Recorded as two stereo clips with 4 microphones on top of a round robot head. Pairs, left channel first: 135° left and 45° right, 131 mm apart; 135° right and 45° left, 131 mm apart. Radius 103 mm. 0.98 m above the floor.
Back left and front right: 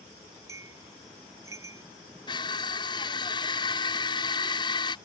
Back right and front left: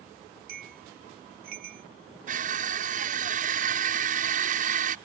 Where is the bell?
25° left.